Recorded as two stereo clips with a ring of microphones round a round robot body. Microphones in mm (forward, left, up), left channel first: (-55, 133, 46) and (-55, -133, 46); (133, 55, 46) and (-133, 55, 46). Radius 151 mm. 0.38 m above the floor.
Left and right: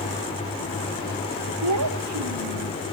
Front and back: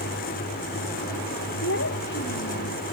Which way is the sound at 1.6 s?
55° right.